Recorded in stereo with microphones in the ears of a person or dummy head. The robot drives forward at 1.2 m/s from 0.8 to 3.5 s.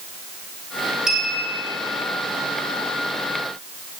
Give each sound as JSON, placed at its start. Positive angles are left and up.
{"t": 1.1, "sound": "a clink", "side_deg": -5, "distance_m": 3.5}